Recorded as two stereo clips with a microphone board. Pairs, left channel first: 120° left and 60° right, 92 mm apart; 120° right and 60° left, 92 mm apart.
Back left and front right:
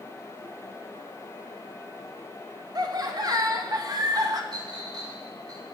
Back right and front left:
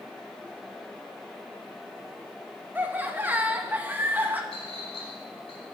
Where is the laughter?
10° right, 1.1 m.